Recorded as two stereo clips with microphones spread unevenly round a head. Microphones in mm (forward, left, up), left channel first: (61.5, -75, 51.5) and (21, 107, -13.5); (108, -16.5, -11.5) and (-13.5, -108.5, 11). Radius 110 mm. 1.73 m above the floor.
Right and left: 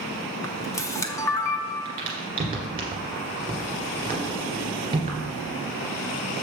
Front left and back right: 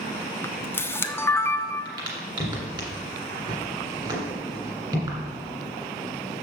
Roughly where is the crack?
Behind.